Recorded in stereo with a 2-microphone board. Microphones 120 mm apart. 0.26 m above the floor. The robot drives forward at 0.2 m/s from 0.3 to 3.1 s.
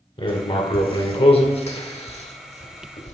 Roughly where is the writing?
Left.